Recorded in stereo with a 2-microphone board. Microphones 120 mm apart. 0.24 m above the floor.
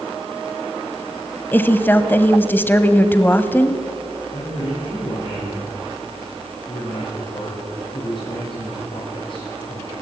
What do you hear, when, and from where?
1.5 s a woman speaking: 15° left (ahead or behind), 1.1 m
4.3 s a man speaking: 55° left (ahead or behind), 8 m